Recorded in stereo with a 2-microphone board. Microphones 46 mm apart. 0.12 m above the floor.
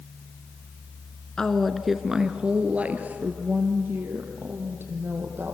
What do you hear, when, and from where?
1.4 s a woman speaking: 15° left (ahead or behind), 1.4 m; by 5.6 s 50° right (ahead or behind), 4.5 m